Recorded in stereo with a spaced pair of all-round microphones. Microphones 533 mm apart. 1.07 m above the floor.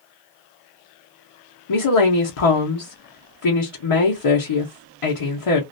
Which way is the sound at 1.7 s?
70° left (ahead or behind).